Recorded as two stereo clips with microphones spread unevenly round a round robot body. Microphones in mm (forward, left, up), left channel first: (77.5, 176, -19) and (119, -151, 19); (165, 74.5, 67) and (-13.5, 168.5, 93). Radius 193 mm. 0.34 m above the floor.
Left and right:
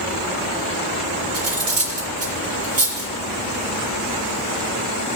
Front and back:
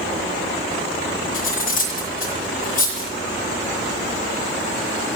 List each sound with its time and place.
1.3 s cutlery clinking: 35° right, 6 m